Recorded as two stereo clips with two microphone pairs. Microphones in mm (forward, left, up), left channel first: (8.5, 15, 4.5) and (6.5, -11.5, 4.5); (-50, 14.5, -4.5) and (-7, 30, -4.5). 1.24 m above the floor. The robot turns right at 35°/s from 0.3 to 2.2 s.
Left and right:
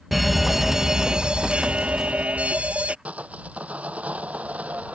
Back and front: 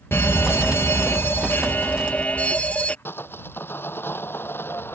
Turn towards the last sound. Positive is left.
turn(degrees=-125)